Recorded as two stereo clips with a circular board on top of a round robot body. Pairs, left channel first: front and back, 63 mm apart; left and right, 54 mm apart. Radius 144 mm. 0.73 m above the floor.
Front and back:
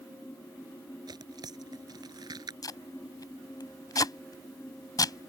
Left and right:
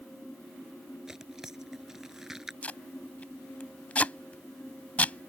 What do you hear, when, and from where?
1.1 s tearing paper: 175° right
2.6 s tape being pulled: 25° left